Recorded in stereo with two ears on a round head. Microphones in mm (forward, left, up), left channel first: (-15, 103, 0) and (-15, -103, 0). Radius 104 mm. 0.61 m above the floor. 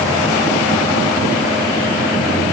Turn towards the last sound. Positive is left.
No sound to turn to.